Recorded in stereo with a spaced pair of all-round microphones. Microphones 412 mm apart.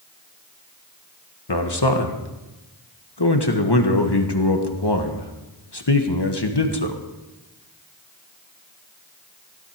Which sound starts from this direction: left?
A man speaking, at 1.5 s.